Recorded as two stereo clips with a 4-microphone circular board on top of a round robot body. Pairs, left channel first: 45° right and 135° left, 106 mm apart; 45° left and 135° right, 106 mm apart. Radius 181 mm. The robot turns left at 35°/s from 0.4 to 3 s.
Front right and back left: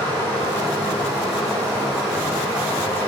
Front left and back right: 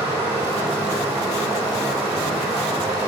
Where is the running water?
100° right, 1.6 m; by 3.1 s 170° left, 1.6 m.